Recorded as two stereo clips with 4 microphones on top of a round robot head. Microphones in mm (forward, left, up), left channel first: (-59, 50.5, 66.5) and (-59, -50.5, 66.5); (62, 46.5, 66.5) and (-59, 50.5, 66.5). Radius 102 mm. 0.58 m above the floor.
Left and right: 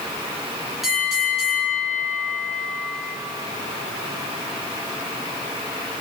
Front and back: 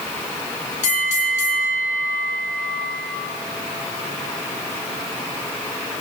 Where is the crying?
No crying in this recording.